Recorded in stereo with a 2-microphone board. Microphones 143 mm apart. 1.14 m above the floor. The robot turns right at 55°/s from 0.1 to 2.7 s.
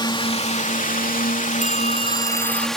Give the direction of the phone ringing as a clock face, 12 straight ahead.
10 o'clock.